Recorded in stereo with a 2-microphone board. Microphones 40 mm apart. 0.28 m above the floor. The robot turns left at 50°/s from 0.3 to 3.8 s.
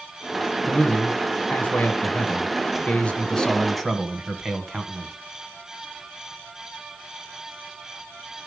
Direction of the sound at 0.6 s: 155° left.